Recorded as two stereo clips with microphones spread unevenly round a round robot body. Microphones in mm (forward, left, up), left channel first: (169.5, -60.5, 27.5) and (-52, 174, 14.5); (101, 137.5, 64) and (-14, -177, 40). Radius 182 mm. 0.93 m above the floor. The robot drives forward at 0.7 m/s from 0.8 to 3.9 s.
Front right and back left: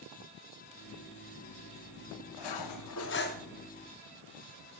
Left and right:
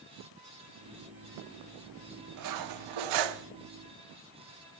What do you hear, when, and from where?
2.4 s cutlery clinking: 70° right, 0.9 m; by 3.5 s 120° right, 0.9 m